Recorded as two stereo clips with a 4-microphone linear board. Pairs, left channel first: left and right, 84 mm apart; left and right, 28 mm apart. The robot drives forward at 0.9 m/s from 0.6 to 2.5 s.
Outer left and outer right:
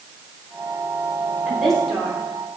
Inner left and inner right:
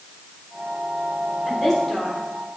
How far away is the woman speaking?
About 4.5 m.